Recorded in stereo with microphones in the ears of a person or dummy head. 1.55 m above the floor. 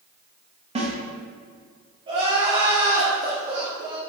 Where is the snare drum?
30° right (ahead or behind), 1.3 m.